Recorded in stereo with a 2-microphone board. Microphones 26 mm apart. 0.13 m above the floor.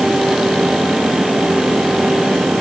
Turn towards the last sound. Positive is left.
No sound to turn to.